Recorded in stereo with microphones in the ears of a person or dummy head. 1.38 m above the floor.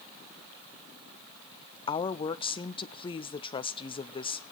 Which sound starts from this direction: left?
A woman speaking, at 1.9 s.